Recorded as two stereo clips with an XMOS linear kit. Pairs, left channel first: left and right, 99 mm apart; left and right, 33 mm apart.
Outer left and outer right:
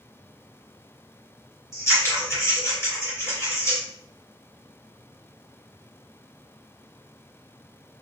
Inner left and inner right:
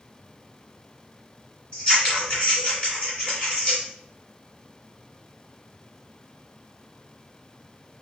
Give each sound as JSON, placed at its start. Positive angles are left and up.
{"t": 1.7, "sound": "scissors", "side_deg": 30, "distance_m": 2.5}